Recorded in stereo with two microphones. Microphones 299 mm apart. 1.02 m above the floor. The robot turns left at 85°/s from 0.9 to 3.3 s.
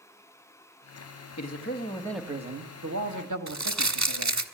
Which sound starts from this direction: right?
Crumpling, at 3.5 s.